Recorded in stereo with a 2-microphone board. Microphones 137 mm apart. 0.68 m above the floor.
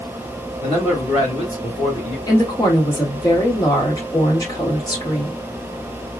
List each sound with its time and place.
0.6 s a man speaking: 45° left (ahead or behind), 2 m
2.3 s a woman speaking: 30° left (ahead or behind), 1.8 m